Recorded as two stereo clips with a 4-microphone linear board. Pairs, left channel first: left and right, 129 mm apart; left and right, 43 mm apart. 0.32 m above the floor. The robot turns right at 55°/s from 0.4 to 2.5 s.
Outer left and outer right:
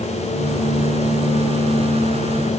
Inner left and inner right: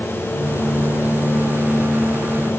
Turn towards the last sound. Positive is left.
No sound to turn to.